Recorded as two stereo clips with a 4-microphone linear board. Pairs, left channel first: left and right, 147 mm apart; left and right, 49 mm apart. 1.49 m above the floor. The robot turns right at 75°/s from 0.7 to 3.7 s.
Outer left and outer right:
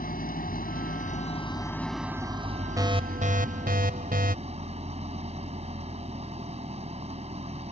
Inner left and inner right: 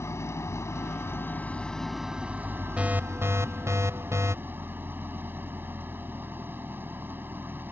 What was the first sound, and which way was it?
An engine running, 85° left.